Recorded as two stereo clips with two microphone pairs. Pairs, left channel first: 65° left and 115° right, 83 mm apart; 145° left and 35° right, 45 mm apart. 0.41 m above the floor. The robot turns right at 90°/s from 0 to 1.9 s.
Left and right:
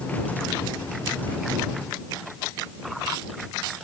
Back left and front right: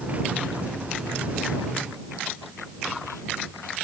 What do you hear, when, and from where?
Only background noise.